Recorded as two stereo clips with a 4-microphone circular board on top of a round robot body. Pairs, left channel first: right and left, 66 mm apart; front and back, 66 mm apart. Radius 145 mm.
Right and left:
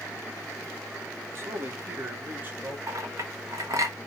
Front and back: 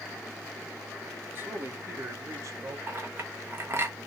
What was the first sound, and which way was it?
A man speaking, 130° left.